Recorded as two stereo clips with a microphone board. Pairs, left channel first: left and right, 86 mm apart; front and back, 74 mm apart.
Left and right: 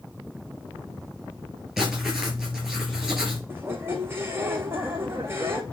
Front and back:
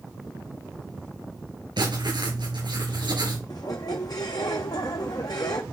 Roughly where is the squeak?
Ahead right.